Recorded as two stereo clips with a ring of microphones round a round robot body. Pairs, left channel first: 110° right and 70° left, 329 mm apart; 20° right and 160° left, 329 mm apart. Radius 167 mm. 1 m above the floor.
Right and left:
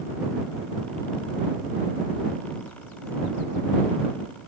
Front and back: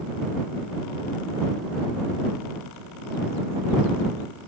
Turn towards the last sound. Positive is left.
No sound to turn to.